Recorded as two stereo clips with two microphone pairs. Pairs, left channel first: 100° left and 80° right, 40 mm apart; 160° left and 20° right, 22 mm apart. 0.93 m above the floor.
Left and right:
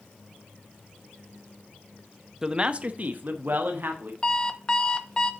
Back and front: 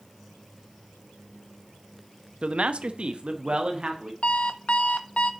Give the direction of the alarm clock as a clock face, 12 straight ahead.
7 o'clock.